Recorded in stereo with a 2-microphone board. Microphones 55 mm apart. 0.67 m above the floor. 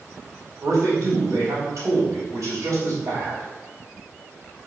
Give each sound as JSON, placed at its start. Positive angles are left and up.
{"t": 0.6, "sound": "a man speaking", "side_deg": -75, "distance_m": 3.5}